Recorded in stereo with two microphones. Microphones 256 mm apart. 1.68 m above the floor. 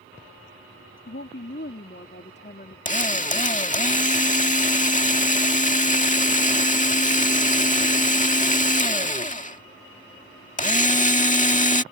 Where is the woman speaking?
55° left (ahead or behind); by 2.8 s 35° left (ahead or behind).